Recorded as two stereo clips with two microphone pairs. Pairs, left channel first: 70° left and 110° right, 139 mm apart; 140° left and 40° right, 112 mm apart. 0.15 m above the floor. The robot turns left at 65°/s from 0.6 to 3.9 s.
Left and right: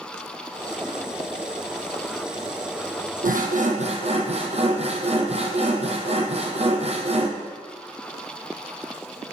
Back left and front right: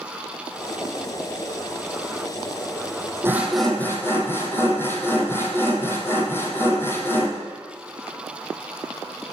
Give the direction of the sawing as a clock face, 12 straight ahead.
4 o'clock.